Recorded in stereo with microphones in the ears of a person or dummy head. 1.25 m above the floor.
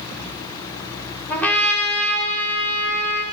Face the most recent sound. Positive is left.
turn(degrees=10)  # may be behind; listen again after turning